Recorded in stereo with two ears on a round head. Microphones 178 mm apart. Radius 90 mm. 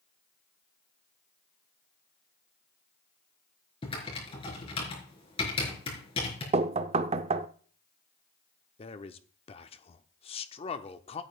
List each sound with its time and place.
3.8 s typing on a keyboard: 25° left (ahead or behind), 4 m
6.5 s knocking: 30° right (ahead or behind), 0.6 m
8.8 s a man speaking: 30° left (ahead or behind), 0.8 m